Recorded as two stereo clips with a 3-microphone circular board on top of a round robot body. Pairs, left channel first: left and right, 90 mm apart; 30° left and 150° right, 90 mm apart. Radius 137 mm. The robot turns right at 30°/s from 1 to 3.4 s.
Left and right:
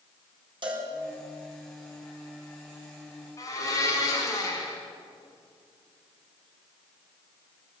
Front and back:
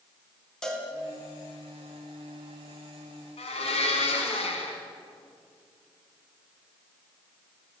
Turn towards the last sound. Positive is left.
turn(degrees=35)